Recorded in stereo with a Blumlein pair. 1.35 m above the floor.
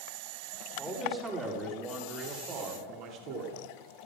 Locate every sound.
0.8 s a man speaking: 15° right, 3.5 m; by 3.6 s 40° right, 3 m